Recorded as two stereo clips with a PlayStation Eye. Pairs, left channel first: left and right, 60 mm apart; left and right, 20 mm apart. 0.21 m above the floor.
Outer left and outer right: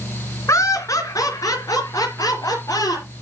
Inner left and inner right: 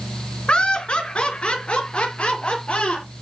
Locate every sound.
0.5 s laughter: 55° left (ahead or behind), 2 m; by 3.1 s 75° left (ahead or behind), 5 m